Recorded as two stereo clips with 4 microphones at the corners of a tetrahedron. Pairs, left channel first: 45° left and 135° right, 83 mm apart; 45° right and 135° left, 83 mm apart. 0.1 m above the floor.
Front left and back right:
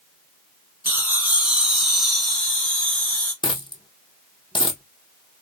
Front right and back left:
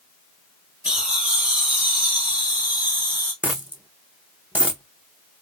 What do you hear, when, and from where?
0.8 s laughter: 155° right, 1.4 m; by 3.3 s 100° left, 1.7 m
3.4 s a dropped coin: 65° left, 0.6 m